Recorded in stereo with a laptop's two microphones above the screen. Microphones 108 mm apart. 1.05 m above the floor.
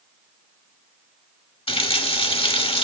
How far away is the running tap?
About 1.3 m.